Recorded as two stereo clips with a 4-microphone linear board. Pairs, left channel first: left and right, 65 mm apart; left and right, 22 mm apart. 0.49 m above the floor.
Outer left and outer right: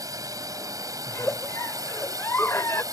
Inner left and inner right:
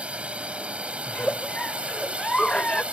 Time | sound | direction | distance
0.0 | a drone | 60° right (ahead or behind) | ?
1.1 | a giggle | 40° left (ahead or behind) | ?